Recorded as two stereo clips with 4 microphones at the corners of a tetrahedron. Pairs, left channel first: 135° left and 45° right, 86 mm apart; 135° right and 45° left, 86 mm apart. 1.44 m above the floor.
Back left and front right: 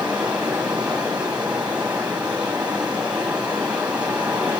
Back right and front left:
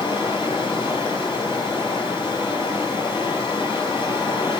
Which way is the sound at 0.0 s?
120° right.